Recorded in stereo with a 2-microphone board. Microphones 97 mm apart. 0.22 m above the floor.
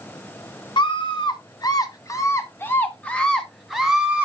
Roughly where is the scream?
Left.